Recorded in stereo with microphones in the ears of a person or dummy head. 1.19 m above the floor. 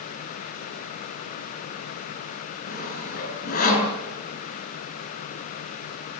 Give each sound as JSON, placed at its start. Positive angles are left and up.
{"t": 2.7, "sound": "sawing", "side_deg": 50, "distance_m": 7.0}